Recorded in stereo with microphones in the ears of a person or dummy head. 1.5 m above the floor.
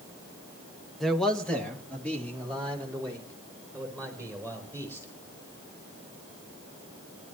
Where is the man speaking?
Centre (ahead or behind), 1.0 m; by 5.1 s 10° left (ahead or behind), 6.5 m.